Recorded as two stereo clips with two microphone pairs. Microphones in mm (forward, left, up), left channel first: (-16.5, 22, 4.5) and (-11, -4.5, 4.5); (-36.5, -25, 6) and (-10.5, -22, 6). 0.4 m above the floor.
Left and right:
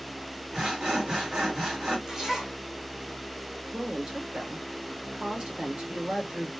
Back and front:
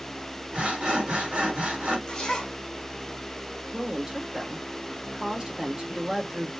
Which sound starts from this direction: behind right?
A zipper, at 2.1 s.